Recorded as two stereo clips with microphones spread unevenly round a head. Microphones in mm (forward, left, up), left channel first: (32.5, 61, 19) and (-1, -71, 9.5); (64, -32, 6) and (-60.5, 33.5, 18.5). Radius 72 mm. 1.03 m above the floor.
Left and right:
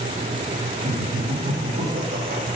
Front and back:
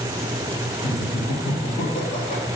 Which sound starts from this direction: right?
Laughter, at 0.8 s.